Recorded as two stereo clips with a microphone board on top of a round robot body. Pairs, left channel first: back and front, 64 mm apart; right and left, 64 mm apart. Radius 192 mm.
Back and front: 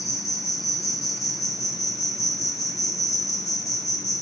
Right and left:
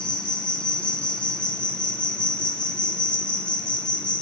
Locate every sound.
0.0 s an insect: 165° right, 3.5 m